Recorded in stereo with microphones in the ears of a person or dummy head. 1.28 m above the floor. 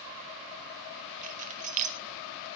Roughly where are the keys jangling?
Right.